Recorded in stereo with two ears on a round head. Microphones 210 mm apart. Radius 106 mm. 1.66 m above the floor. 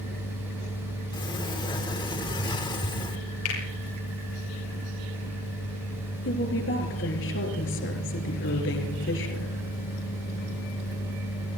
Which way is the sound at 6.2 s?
50° left (ahead or behind).